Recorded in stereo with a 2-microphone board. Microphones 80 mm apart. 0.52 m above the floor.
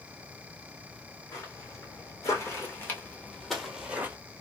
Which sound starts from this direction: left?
Footsteps, at 1.3 s.